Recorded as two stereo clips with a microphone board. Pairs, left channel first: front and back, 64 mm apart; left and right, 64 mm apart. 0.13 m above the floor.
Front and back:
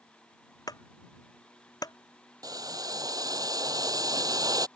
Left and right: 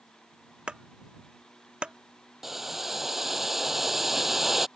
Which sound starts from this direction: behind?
Boiling, at 2.4 s.